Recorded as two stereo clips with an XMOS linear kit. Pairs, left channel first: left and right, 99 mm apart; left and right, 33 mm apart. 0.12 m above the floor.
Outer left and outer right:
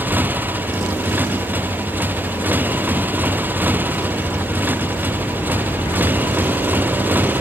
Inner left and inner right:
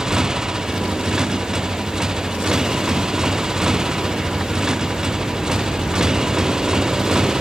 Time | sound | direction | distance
0.0 | a motorcycle | 15° right (ahead or behind) | ?